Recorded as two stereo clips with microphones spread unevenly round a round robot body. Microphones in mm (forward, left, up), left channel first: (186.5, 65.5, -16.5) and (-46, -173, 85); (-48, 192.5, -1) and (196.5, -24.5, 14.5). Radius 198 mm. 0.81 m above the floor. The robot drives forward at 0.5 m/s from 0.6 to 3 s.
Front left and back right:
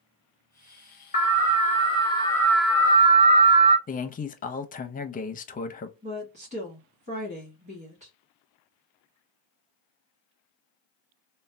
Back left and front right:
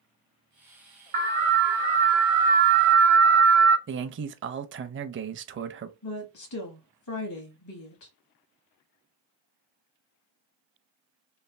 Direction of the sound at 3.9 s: 5° left.